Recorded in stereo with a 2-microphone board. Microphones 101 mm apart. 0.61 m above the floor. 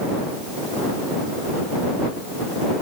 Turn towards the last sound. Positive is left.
No sound to turn to.